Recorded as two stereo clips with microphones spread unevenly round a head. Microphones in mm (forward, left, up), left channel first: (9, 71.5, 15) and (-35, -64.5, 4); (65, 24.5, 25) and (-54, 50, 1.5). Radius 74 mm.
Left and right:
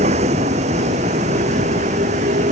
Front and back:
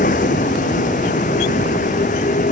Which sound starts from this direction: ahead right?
A vehicle, at 0.0 s.